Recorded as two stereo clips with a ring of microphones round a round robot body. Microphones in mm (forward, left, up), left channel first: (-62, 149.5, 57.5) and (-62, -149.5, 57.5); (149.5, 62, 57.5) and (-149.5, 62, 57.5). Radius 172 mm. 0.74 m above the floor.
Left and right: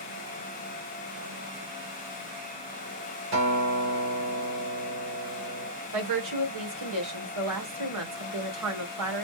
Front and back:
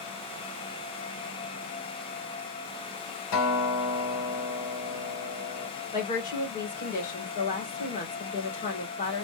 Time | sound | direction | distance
3.3 | a guitar | 40° right | 3 m
5.9 | a woman speaking | 65° right | 2.5 m